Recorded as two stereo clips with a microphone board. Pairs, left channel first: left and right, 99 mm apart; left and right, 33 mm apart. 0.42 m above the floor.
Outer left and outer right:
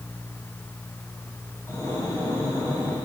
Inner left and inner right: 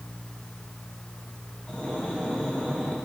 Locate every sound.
1.7 s breathing: 35° left (ahead or behind), 1.6 m